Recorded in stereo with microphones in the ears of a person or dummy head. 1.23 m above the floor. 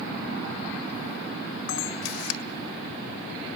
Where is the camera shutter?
65° left (ahead or behind), 1.9 m.